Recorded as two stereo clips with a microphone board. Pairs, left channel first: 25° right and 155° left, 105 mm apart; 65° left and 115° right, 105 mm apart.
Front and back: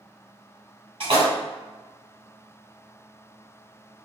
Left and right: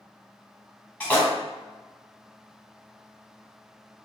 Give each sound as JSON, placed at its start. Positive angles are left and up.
{"t": 1.0, "sound": "a splash", "azimuth_deg": 145, "distance_m": 1.4}